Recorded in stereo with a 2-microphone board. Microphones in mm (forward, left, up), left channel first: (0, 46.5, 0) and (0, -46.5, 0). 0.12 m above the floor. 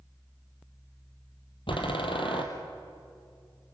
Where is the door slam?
70° left (ahead or behind), 3 m.